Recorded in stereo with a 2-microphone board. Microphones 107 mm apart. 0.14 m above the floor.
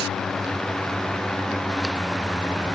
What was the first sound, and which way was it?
Only background noise.